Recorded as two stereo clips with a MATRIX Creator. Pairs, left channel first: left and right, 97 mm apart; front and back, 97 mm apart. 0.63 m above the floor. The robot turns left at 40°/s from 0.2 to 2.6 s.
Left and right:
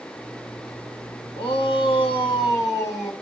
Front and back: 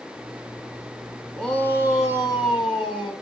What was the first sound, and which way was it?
A shout, 85° left.